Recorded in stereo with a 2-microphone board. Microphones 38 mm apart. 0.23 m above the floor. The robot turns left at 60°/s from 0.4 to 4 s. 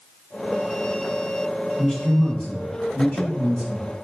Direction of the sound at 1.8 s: 170° left.